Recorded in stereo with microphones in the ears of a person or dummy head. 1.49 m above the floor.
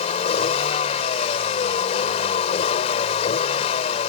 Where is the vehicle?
35° left (ahead or behind).